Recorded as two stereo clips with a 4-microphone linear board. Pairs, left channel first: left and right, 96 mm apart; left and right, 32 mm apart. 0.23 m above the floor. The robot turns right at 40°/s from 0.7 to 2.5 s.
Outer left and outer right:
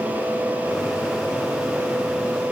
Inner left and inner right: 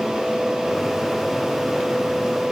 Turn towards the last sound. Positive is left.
No sound to turn to.